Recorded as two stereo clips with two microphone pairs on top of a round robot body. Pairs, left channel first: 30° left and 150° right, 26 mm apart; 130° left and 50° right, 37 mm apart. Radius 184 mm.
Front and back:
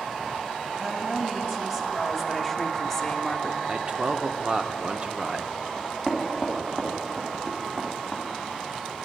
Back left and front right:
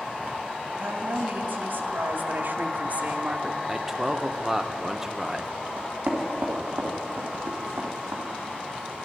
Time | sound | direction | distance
0.7 | a woman speaking | 85° right | 3 m
3.7 | a man speaking | 115° right | 1.1 m
5.8 | knocking | 80° right | 3 m